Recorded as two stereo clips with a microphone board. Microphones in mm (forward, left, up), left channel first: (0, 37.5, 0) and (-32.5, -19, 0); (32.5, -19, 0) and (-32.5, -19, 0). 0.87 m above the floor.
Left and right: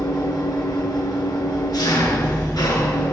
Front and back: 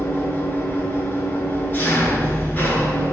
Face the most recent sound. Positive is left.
turn(degrees=60)